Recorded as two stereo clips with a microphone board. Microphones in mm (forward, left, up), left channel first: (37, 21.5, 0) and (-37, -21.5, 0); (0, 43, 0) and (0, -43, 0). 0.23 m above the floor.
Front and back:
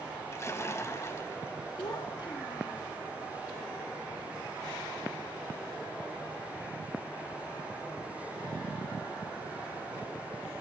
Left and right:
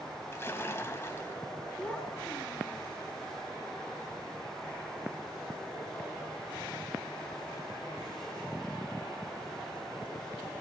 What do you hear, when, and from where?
0.3 s a splash: 55° left, 1.3 m
1.8 s a child speaking: 15° left, 1.3 m